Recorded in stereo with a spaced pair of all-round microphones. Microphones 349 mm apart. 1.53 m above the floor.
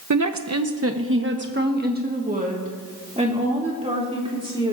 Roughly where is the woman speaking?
Right.